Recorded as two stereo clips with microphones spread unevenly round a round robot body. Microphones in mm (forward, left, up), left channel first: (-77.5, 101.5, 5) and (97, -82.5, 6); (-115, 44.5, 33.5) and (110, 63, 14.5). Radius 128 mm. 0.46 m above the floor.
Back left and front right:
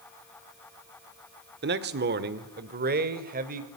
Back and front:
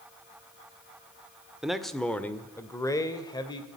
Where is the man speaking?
80° right, 1.2 m; by 3.7 s 100° right, 2.0 m.